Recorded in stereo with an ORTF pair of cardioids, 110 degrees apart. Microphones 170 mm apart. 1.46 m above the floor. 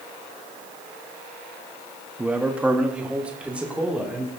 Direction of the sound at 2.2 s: 10° right.